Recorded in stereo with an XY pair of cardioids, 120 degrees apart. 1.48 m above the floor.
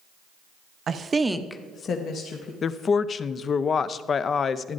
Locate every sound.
0.9 s a woman speaking: 45° right, 1.0 m; by 2.5 s 65° left, 1.7 m
2.6 s a woman speaking: 40° left, 0.6 m